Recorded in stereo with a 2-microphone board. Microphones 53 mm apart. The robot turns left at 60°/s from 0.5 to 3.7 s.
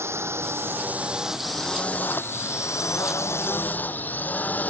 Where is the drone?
65° right (ahead or behind); by 4.7 s 40° left (ahead or behind).